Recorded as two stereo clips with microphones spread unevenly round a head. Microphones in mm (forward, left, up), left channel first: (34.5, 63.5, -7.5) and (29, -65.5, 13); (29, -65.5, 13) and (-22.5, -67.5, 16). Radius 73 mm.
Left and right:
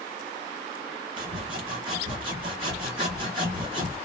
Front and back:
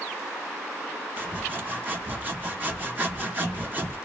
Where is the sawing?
130° right, 1.2 m.